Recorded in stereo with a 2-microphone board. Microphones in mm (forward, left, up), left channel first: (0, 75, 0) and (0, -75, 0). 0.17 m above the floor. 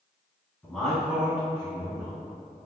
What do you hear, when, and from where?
0.6 s a man speaking: 5° left (ahead or behind), 1.1 m; by 2.1 s 30° right (ahead or behind), 1.3 m